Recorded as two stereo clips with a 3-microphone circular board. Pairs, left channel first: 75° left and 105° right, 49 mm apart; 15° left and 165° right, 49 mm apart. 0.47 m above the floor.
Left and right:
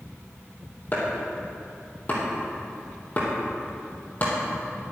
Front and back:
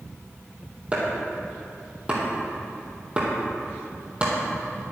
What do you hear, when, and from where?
0.9 s chopping: 125° left, 3.5 m